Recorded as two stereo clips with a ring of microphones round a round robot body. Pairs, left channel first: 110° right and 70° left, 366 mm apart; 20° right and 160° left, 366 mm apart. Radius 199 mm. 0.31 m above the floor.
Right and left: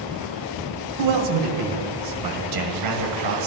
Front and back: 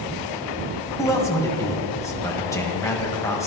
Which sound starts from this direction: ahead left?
A man speaking, at 1.0 s.